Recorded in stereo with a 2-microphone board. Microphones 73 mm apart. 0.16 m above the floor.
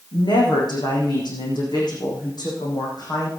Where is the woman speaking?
80° left, 7.5 m; by 3.3 s 65° left (ahead or behind), 7 m.